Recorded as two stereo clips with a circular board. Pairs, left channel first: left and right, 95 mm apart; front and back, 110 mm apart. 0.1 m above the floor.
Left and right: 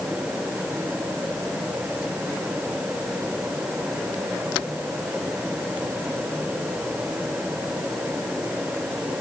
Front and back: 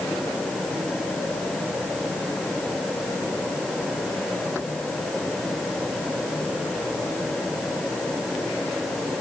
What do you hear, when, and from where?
Only background noise.